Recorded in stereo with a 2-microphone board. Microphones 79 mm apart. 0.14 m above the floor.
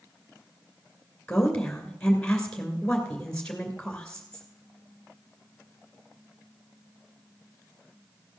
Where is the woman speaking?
15° left (ahead or behind), 2.5 m.